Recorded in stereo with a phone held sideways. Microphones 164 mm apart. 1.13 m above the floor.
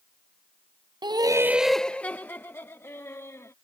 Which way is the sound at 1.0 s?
25° right (ahead or behind).